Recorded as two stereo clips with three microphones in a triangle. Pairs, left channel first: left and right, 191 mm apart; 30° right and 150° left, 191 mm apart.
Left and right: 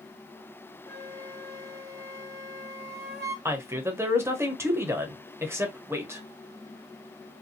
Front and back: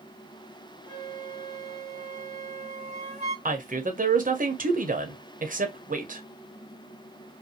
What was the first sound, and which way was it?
A flute, 120° left.